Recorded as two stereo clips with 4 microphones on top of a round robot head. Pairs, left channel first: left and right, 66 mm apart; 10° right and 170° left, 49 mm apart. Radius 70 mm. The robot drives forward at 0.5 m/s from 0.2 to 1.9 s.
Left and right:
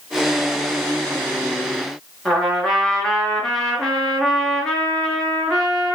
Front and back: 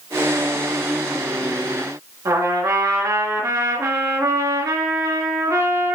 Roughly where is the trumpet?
Behind.